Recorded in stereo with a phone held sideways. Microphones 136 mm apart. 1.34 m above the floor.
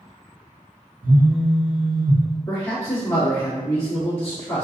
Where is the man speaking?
20° left (ahead or behind), 1.6 m.